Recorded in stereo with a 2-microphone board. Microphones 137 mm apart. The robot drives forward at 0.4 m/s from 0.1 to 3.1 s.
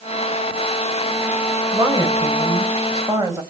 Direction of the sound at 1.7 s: 25° right (ahead or behind).